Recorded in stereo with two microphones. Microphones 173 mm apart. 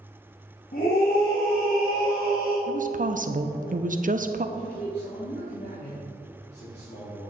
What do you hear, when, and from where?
0.7 s a scream: 65° left (ahead or behind), 2 m
2.7 s a woman speaking: 55° right (ahead or behind), 0.7 m
4.5 s a man speaking: 85° left, 3 m